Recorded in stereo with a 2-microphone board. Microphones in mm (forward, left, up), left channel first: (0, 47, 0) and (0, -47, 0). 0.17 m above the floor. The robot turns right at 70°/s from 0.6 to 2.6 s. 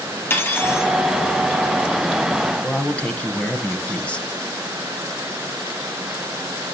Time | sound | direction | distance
0.3 | cutlery clinking | 20° left (ahead or behind) | 2.5 m
2.6 | a man speaking | 15° left (ahead or behind) | 1.1 m